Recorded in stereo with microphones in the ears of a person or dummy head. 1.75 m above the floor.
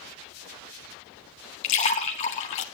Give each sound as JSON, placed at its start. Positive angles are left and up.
{"t": 1.6, "sound": "a splash", "side_deg": 30, "distance_m": 1.2}